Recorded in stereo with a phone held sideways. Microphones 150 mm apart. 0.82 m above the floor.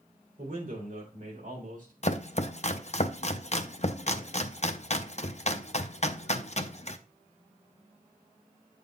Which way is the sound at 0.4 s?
75° right (ahead or behind).